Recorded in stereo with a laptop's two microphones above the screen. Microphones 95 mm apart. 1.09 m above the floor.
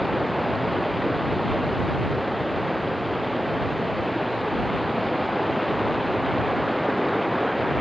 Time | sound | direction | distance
0.0 | running water | centre (ahead or behind) | ?